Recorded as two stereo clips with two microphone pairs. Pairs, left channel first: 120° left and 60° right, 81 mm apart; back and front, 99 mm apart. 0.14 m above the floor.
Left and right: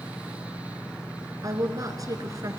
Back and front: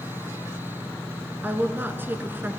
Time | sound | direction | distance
1.4 | a woman speaking | 65° right | 1.7 m